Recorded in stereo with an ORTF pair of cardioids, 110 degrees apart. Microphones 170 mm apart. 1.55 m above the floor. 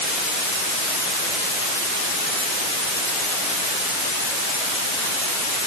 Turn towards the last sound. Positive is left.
No sound to turn to.